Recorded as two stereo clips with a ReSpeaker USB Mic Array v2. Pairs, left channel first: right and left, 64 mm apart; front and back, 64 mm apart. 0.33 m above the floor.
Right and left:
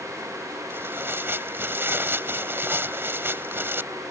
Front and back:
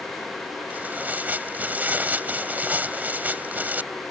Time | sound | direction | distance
0.7 | tearing paper | 125° left | ?